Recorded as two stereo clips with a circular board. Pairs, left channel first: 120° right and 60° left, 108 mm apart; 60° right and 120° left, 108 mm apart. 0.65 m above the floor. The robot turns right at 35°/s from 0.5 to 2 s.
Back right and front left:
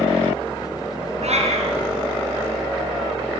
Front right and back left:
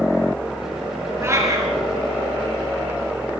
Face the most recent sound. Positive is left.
turn(degrees=80)